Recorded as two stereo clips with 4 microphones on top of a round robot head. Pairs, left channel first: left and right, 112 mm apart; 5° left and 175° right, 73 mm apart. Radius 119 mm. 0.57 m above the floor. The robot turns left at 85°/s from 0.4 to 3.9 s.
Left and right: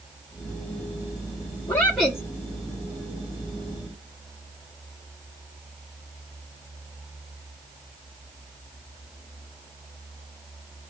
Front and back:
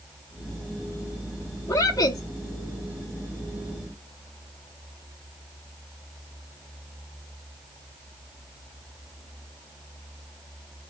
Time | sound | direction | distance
1.7 | a woman speaking | 30° left | 0.9 m